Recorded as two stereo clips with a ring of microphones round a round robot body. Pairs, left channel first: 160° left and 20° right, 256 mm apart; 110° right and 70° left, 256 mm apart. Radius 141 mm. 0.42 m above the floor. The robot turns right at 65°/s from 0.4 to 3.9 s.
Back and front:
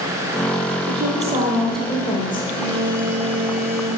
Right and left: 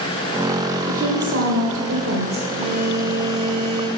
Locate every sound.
0.9 s a woman speaking: 10° left, 2 m; by 2.5 s 115° left, 2 m
2.6 s a phone buzzing: straight ahead, 3 m; by 3.9 s 85° left, 3 m